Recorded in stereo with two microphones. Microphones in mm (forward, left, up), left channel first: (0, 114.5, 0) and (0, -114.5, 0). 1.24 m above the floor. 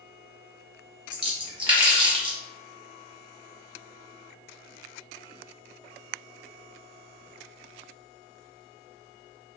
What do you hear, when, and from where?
1.1 s a splash: 20° right (ahead or behind), 0.7 m